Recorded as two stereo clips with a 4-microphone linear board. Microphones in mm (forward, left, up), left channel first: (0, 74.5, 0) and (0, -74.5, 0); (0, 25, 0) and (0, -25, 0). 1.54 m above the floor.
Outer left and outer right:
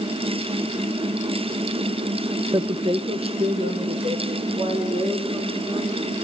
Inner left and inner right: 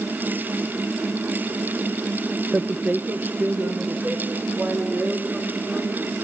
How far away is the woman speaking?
About 0.6 m.